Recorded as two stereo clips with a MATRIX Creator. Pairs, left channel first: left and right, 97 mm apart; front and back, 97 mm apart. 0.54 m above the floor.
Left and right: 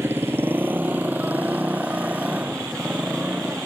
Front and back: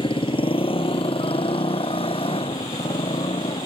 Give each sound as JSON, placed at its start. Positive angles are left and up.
{"t": 0.0, "sound": "a motorcycle", "azimuth_deg": -25}